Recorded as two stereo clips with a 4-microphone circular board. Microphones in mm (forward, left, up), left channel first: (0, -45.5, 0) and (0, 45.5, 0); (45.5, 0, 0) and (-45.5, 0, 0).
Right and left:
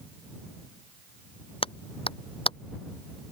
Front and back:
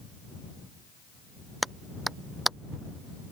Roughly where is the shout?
No shout in this recording.